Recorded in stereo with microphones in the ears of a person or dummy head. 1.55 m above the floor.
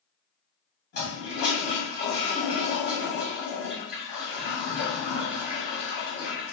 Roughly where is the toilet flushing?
Left.